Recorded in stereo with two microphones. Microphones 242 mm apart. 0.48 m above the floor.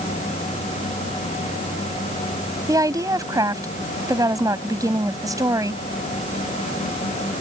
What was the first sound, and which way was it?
A woman speaking, 15° right (ahead or behind).